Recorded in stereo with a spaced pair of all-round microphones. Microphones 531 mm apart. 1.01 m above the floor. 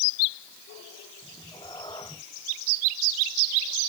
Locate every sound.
1.2 s a cat meowing: 10° left (ahead or behind)